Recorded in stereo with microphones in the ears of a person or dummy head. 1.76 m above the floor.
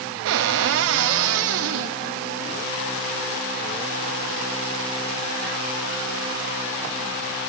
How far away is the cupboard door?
About 0.6 m.